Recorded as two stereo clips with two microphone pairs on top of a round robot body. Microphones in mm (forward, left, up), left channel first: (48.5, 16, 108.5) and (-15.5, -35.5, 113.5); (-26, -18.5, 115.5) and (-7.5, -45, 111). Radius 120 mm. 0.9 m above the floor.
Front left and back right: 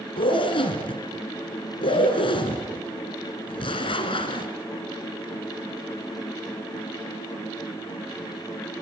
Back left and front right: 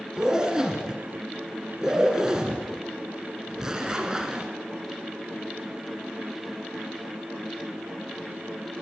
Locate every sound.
0.2 s a zipper: 25° left, 2 m